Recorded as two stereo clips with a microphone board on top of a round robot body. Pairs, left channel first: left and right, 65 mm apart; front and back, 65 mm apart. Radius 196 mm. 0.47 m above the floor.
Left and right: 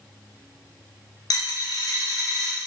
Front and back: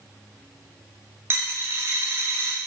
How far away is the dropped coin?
About 0.6 m.